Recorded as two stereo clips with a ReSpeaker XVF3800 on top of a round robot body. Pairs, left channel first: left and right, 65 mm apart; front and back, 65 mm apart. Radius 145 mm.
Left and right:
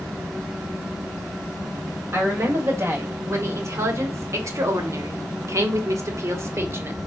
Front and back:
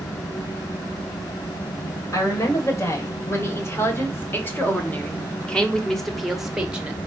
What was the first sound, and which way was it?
A woman speaking, 40° right.